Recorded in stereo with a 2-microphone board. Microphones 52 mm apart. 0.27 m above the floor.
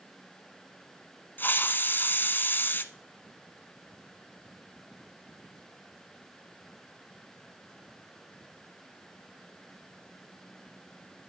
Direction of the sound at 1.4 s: 35° left (ahead or behind).